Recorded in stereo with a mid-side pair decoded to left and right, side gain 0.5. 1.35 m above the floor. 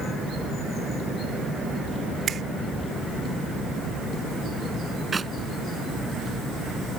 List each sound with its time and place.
2.3 s a finger snap: 45° right
5.1 s a clap: 25° right